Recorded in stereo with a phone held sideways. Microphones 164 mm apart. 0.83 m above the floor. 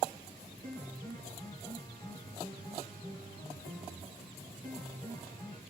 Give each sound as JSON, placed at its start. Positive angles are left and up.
{"t": 0.6, "sound": "a piano", "side_deg": 25, "distance_m": 1.4}